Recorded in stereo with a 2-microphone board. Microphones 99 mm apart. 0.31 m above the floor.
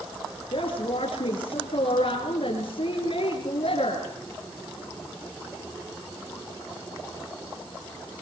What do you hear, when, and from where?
0.5 s a woman speaking: 70° left (ahead or behind), 5.5 m